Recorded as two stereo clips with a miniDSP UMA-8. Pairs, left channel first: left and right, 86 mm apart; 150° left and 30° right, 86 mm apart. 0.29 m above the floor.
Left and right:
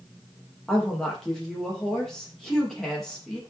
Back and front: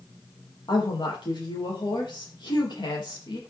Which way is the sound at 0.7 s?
175° left.